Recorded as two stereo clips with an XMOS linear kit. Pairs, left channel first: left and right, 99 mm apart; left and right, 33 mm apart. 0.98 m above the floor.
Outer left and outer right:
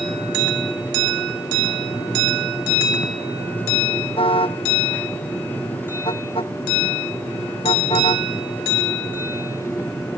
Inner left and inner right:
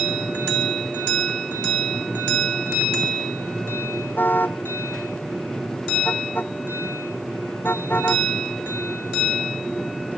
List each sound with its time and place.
4.2 s a car horn: 65° left (ahead or behind)